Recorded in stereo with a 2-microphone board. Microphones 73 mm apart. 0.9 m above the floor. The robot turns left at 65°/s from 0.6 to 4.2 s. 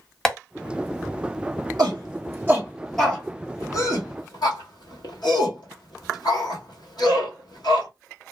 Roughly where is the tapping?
Centre.